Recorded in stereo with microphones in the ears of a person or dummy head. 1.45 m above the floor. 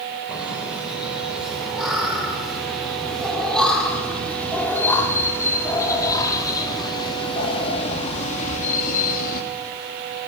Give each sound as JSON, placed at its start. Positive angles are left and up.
{"t": 0.3, "sound": "laughter", "side_deg": -5, "distance_m": 6.0}